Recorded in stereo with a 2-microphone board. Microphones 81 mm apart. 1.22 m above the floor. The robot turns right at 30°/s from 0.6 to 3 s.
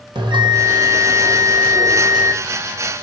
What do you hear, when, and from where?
0.1 s a bell: 80° right, 2 m; by 2.4 s 25° right, 2 m